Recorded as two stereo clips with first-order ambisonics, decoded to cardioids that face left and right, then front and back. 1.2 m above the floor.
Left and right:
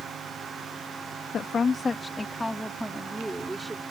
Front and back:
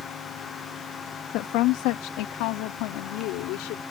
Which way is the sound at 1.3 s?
25° left.